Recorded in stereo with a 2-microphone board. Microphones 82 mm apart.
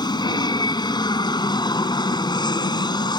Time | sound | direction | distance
0.0 | an aircraft | 60° left (ahead or behind) | ?